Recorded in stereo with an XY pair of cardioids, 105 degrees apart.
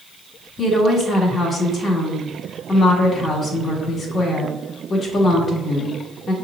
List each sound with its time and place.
0.6 s a woman speaking: 45° left, 1.5 m